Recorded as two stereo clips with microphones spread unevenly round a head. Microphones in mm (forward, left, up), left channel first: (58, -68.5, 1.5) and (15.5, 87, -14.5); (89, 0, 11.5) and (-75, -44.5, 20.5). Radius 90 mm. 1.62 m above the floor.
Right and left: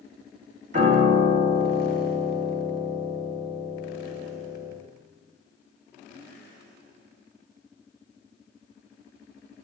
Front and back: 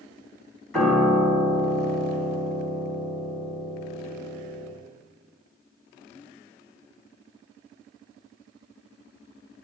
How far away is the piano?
About 1.9 m.